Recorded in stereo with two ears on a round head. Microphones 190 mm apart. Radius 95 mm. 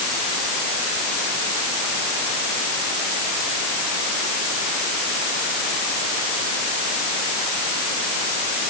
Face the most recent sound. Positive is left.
No sound to turn to.